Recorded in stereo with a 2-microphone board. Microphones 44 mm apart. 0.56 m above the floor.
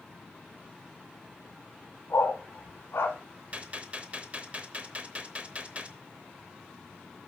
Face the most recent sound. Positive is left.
turn(degrees=-30)  # may be behind; listen again after turning